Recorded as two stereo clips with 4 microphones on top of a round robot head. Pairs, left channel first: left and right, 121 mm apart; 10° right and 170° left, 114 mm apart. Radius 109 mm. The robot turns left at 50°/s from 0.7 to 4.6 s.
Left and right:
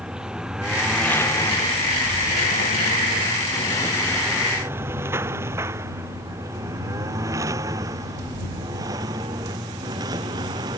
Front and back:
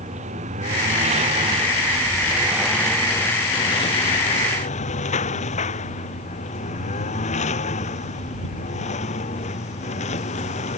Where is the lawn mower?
175° right; by 10.8 s 30° right.